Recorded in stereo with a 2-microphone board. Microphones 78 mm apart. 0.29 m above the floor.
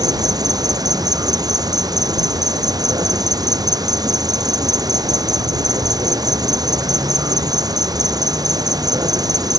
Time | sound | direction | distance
0.0 | an insect | 55° right (ahead or behind) | ?